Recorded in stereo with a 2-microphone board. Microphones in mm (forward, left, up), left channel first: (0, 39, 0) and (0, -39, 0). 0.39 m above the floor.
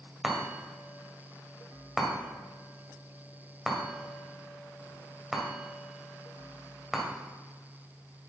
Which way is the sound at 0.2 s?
5° right (ahead or behind).